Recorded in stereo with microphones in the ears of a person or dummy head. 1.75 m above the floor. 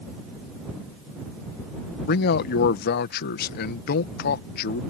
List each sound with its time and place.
2.1 s a man speaking: 55° left (ahead or behind)